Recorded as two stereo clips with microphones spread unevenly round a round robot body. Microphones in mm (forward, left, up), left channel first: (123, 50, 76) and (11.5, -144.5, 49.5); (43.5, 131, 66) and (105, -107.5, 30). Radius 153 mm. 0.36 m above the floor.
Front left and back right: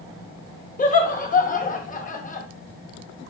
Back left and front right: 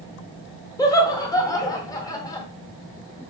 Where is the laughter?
25° left, 1.0 m.